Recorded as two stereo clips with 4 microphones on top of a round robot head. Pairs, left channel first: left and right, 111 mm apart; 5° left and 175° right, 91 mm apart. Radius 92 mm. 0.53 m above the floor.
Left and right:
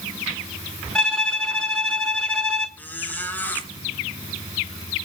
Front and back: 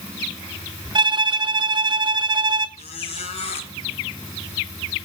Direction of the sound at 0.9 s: 170° left.